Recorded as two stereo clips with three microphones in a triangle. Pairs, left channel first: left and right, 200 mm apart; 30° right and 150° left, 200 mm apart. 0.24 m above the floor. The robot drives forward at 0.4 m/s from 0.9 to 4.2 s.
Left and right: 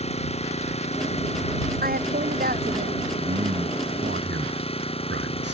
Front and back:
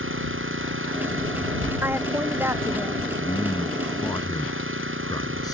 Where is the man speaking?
90° right; by 5.5 s 100° right.